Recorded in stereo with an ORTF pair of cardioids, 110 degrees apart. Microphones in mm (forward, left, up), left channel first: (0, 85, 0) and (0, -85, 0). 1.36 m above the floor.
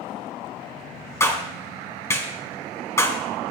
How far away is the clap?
About 5 m.